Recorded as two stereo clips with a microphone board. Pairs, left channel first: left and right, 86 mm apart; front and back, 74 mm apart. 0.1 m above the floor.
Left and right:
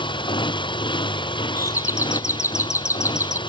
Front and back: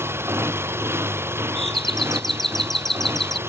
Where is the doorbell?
85° left.